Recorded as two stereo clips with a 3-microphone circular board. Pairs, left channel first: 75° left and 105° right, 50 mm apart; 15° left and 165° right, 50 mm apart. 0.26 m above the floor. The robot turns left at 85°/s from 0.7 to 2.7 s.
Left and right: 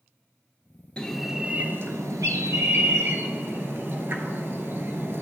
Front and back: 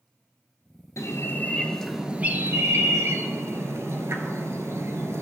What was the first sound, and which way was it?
A bird, 5° left.